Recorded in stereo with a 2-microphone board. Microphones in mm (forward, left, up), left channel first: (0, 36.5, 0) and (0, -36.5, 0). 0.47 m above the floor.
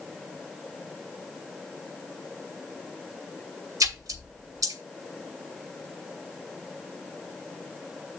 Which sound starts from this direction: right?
A splash, at 3.8 s.